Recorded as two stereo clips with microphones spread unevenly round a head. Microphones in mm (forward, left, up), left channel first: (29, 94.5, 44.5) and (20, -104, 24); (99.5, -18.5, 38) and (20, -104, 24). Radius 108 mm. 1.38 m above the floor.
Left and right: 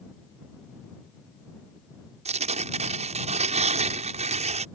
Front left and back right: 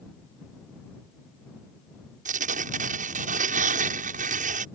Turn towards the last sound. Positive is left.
turn(degrees=-155)